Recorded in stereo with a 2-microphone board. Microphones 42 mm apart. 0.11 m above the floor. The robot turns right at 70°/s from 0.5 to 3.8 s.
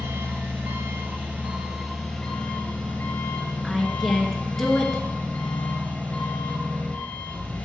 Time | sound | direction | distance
0.0 | an engine running | 100° right | 3.5 m
3.6 | a woman speaking | 5° left (ahead or behind) | 1.5 m